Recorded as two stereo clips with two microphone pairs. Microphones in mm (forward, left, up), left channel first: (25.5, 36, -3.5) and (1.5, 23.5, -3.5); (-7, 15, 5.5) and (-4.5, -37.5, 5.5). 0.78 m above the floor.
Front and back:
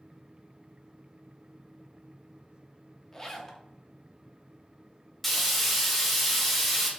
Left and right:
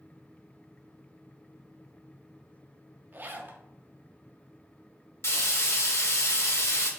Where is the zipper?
40° right, 0.5 m.